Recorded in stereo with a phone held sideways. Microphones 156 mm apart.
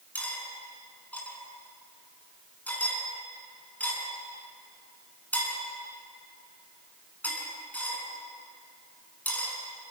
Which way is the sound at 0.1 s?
10° left (ahead or behind).